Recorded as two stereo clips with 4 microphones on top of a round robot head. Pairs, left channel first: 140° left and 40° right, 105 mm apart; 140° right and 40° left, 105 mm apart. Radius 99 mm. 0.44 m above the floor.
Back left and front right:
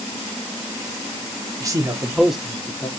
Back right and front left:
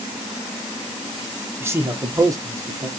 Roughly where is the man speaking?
Ahead.